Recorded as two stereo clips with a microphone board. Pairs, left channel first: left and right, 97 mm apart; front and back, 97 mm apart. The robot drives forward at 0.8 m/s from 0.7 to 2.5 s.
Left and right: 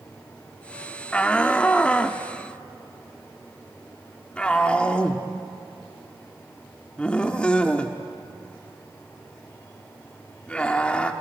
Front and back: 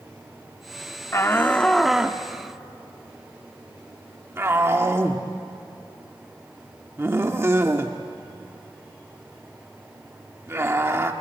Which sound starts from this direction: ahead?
A shout, at 1.1 s.